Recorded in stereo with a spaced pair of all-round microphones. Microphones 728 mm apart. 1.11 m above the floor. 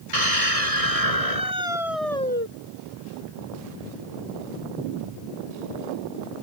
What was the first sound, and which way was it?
A scream, 50° right (ahead or behind).